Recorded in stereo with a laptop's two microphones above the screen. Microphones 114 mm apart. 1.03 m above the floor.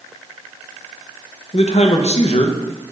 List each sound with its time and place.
1.5 s a man speaking: 70° left (ahead or behind), 0.5 m